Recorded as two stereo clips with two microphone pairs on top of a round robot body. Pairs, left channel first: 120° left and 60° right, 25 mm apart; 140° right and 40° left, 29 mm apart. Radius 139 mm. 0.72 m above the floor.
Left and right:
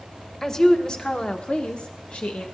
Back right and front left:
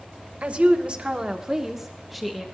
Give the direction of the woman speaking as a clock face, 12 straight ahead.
10 o'clock.